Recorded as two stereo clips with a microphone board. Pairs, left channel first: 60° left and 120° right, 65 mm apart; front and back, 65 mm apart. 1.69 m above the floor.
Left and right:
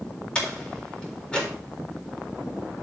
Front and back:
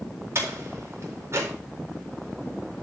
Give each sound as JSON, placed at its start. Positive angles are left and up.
{"t": 0.3, "sound": "a door slam", "azimuth_deg": 135, "distance_m": 4.0}